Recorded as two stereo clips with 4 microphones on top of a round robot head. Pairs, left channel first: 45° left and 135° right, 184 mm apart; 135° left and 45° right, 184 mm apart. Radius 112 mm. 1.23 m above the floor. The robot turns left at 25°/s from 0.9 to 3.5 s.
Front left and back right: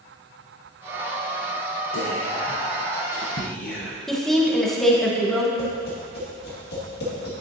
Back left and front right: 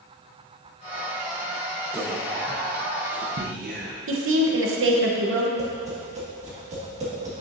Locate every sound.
1.9 s whispering: 35° left, 0.8 m; by 4.0 s 5° right, 0.8 m
4.1 s a woman speaking: 45° right, 1.0 m
5.6 s tapping: 10° left, 1.9 m